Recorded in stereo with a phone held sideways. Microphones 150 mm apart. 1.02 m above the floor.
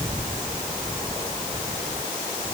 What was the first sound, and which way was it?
Only background noise.